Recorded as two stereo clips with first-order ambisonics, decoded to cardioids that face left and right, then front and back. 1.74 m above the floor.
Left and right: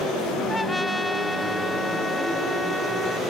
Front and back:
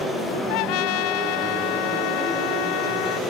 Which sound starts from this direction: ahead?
A trumpet, at 0.5 s.